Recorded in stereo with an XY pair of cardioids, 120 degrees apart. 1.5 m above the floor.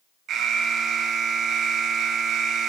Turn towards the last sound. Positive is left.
turn(degrees=-60)